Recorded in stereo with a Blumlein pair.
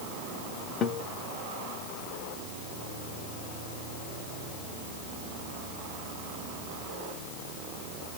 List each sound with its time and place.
0.8 s a guitar: 25° left, 0.8 m